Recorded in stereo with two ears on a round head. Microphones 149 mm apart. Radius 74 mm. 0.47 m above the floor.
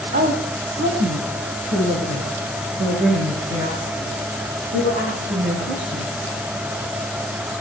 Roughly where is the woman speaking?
Right.